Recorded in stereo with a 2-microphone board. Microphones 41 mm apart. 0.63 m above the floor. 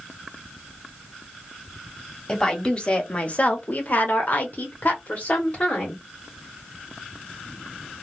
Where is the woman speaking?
15° left (ahead or behind), 1.3 m; by 6.0 s 40° left (ahead or behind), 1.6 m.